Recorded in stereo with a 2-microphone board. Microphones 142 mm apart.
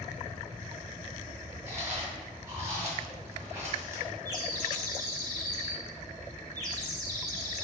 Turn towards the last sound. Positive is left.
turn(degrees=-25)  # may be behind; listen again after turning